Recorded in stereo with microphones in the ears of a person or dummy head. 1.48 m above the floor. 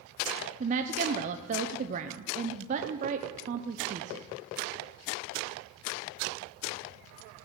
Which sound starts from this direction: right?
A woman speaking, at 0.6 s.